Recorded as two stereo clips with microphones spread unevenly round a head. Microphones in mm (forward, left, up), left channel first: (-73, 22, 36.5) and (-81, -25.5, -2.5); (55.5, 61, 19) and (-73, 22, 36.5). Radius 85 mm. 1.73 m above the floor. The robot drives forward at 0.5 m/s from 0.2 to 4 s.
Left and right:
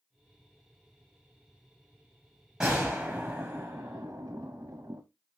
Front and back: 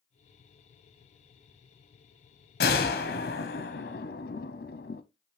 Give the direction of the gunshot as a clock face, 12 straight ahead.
12 o'clock.